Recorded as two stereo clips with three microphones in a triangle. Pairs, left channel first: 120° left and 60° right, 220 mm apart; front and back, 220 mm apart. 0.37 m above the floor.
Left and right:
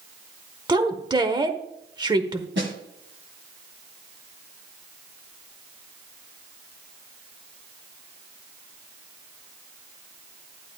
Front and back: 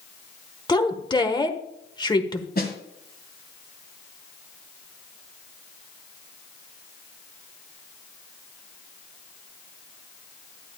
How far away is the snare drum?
About 2 m.